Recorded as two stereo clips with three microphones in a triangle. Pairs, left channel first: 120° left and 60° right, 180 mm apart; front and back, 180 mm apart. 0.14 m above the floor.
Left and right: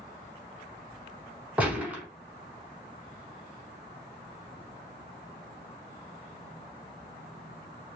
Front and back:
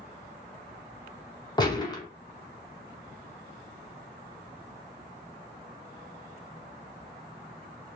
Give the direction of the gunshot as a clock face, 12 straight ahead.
12 o'clock.